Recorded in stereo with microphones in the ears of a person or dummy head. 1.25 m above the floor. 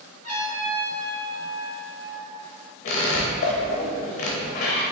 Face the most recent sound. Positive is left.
turn(degrees=40)  # may be behind; listen again after turning